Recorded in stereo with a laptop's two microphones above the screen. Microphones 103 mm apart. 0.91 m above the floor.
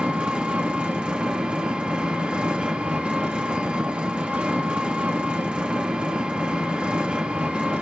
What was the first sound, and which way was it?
An engine running, 10° right (ahead or behind).